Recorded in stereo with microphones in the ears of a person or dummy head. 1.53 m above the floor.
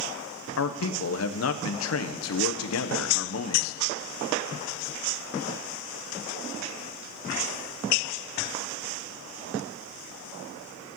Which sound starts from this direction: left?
A man speaking, at 0.6 s.